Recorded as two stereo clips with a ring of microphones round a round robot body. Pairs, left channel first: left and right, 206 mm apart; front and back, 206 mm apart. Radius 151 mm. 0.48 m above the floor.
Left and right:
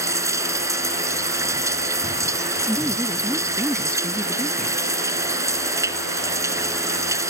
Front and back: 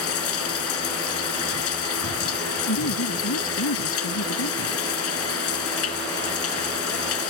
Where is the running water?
15° right.